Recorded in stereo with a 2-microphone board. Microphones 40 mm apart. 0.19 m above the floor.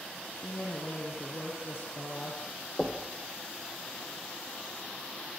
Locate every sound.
0.3 s a woman speaking: 60° left (ahead or behind), 6 m
2.8 s knocking: 15° left (ahead or behind), 3.5 m